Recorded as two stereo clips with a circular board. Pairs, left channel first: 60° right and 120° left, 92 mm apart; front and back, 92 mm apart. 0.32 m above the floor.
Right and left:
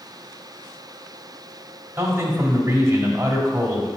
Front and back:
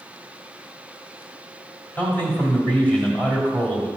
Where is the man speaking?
70° left, 1.7 m.